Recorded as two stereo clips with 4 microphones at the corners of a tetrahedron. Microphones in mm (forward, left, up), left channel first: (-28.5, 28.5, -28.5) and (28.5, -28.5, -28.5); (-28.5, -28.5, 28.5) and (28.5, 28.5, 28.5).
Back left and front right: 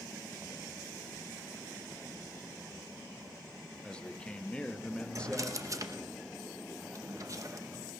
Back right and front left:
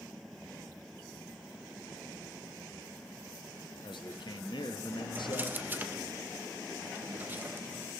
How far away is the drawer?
About 0.8 m.